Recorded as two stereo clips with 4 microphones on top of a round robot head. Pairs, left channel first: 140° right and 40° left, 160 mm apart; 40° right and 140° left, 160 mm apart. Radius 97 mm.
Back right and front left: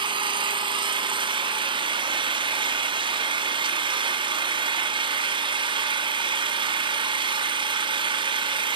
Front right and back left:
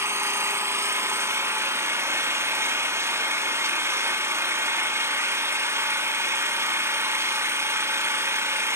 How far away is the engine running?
About 0.9 m.